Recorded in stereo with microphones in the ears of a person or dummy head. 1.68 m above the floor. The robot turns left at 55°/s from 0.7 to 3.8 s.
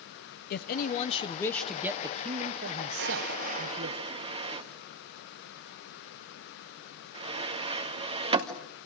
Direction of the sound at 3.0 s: 60° right (ahead or behind).